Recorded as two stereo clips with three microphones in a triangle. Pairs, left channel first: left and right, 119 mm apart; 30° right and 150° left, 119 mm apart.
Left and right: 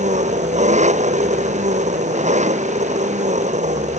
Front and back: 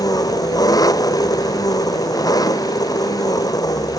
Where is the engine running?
90° right.